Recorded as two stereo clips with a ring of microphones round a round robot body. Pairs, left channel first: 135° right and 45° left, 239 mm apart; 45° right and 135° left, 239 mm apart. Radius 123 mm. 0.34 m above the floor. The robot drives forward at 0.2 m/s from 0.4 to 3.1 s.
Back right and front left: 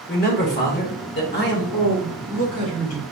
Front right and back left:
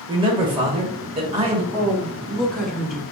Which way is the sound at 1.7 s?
130° right.